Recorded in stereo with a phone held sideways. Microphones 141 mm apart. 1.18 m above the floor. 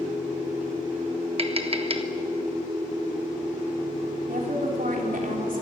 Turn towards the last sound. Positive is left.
turn(degrees=-80)